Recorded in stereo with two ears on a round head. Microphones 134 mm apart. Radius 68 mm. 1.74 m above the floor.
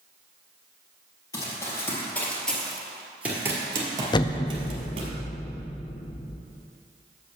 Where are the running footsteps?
25° left (ahead or behind), 2 m; by 5.1 s 40° right (ahead or behind), 2 m.